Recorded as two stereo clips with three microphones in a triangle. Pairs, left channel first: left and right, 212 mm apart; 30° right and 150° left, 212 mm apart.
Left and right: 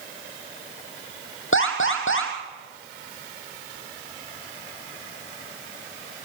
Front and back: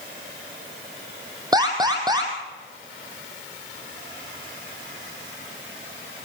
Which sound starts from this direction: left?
An alarm, at 1.5 s.